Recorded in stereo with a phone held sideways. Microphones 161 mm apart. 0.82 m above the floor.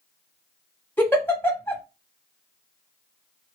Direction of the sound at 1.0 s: 10° left (ahead or behind).